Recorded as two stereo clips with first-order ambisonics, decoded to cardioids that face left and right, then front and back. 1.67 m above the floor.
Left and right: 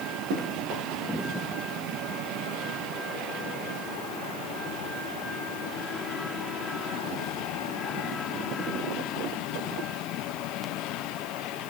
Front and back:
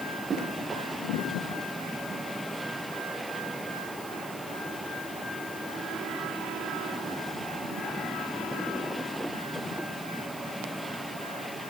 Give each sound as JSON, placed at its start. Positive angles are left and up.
{"t": 0.3, "sound": "running footsteps", "azimuth_deg": -105, "distance_m": 10.0}